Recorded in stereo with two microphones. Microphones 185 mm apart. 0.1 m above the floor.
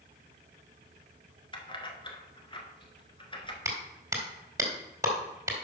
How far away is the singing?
No singing in this recording.